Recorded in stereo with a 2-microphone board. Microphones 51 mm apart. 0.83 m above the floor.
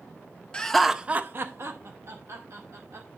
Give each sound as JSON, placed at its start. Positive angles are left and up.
{"t": 0.5, "sound": "laughter", "side_deg": 20, "distance_m": 0.8}